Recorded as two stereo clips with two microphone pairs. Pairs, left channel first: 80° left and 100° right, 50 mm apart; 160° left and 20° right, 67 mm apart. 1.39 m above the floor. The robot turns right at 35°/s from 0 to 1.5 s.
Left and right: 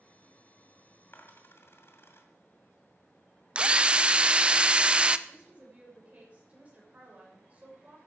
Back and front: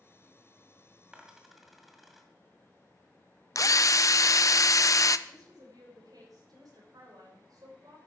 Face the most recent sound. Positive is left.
turn(degrees=-40)